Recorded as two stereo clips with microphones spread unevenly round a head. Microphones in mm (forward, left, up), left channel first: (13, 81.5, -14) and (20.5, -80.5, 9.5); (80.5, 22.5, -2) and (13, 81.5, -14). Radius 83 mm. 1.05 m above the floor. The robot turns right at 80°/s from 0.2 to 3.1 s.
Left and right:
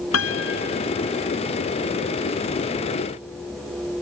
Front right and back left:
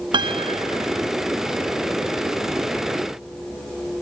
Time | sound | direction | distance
0.1 | a piano | 100° left | ?